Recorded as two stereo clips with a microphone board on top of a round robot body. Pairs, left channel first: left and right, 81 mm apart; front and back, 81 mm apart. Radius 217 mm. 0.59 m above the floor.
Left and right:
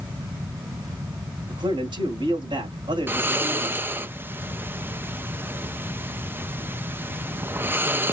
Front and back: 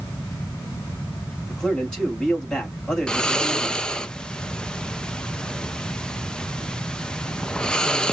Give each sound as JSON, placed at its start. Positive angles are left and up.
{"t": 1.5, "sound": "a man speaking", "azimuth_deg": -80, "distance_m": 4.0}
{"t": 3.1, "sound": "snoring", "azimuth_deg": -70, "distance_m": 0.9}